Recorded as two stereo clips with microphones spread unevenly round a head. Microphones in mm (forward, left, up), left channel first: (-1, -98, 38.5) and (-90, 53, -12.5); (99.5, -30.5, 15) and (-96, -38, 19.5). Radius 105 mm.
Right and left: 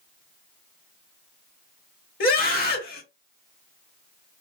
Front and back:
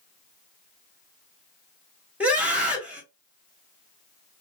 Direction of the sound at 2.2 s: 95° right.